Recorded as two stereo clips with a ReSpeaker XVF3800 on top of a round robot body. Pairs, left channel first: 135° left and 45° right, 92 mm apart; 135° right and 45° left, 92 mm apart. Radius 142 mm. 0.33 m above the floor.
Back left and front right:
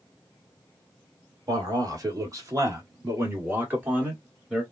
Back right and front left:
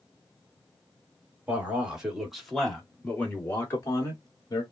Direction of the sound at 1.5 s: 25° right.